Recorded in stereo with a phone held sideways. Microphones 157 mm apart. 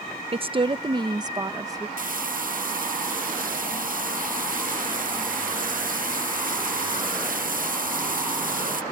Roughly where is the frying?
Right.